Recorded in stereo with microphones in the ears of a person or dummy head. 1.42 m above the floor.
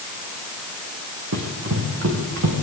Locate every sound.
1.3 s running footsteps: 65° right (ahead or behind), 3.5 m; by 2.6 s 70° right (ahead or behind), 4 m